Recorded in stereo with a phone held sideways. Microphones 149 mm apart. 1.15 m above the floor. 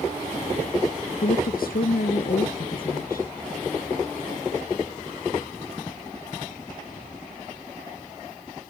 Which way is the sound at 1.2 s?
75° left (ahead or behind).